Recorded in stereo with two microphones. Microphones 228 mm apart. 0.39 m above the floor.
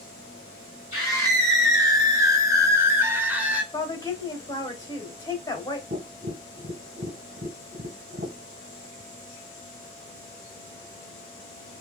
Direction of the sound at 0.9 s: 15° right (ahead or behind).